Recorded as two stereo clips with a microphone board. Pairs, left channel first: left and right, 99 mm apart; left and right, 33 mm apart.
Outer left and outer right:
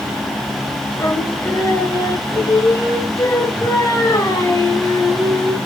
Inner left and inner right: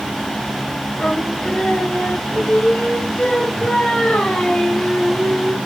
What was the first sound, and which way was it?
Singing, 30° left (ahead or behind).